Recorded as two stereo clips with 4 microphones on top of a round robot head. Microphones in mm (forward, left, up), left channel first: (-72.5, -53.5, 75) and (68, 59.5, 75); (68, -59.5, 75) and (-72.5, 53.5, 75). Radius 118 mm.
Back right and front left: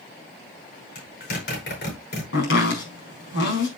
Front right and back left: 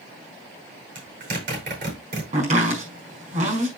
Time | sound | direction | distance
0.9 | a zipper | 175° right | 8.5 m
2.3 | chopping | 165° right | 5.5 m